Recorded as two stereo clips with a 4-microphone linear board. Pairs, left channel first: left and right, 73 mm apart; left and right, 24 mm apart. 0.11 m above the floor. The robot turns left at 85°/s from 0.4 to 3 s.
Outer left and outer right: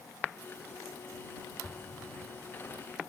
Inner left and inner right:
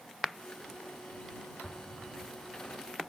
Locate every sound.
1.6 s an explosion: 15° left (ahead or behind); by 2.8 s 70° left (ahead or behind)